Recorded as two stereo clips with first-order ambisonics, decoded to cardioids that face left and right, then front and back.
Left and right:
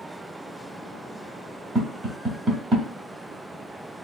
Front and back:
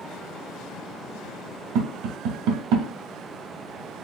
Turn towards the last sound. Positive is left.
turn(degrees=-155)